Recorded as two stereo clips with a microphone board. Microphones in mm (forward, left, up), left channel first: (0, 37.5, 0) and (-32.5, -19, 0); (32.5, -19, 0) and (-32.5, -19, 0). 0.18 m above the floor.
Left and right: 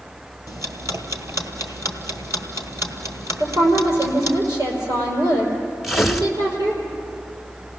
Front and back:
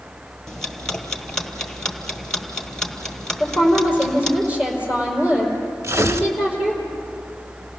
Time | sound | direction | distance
0.5 | ticking | 80° right | 1.5 m
3.4 | a woman speaking | 105° right | 5 m
5.8 | tearing paper | 150° left | 0.9 m